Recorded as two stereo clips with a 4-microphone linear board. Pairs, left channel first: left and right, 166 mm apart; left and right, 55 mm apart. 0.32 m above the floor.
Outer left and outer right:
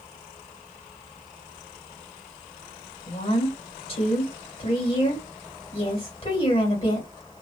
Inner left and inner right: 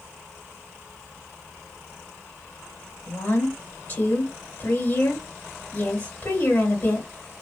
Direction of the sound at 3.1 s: 40° left (ahead or behind).